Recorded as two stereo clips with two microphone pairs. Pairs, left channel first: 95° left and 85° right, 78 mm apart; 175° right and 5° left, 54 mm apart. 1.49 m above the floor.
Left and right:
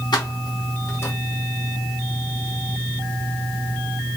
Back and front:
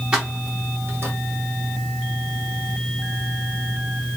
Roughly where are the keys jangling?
Left.